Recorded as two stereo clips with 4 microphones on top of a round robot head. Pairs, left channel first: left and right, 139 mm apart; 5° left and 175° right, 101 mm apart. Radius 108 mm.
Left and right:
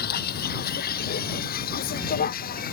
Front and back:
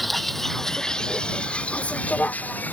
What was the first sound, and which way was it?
A vehicle, 95° left.